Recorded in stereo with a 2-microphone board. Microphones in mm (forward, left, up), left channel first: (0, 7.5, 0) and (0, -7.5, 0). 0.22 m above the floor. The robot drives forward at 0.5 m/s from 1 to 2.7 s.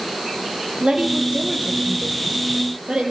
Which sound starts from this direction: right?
A woman speaking, at 0.8 s.